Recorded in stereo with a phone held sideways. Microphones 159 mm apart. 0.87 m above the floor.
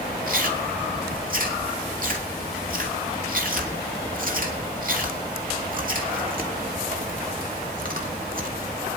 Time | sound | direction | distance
0.3 | chewing | 60° right (ahead or behind) | 2.5 m